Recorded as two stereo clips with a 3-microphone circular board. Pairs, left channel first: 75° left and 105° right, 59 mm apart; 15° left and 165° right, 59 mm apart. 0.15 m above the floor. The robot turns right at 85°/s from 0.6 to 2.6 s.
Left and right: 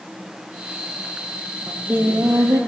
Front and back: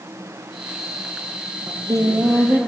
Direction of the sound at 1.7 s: 175° left.